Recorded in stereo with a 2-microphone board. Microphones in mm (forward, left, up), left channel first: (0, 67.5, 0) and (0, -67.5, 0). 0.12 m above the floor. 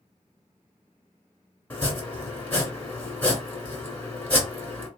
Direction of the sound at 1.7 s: 10° left (ahead or behind).